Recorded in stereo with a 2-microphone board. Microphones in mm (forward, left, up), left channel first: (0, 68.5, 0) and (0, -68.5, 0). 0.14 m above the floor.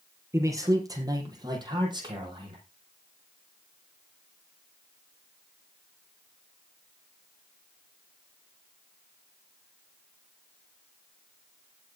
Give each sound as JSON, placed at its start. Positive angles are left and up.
{"t": 0.3, "sound": "a man speaking", "side_deg": -20, "distance_m": 4.5}